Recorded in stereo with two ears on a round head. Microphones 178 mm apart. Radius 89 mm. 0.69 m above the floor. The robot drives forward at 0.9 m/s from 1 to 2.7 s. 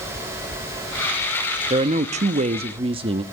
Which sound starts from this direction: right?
A woman speaking, at 1.7 s.